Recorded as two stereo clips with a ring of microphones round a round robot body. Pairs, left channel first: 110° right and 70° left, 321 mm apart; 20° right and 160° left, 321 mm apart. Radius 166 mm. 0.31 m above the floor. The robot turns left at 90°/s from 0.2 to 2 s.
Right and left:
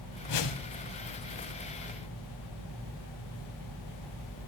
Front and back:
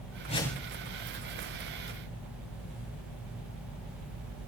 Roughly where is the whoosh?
Right.